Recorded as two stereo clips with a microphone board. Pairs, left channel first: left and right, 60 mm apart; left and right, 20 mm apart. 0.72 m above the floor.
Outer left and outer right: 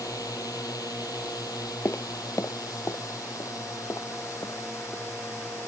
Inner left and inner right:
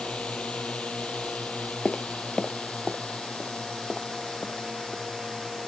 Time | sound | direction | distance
0.0 | a drone | 70° left (ahead or behind) | ?
1.9 | footsteps | 45° left (ahead or behind) | ?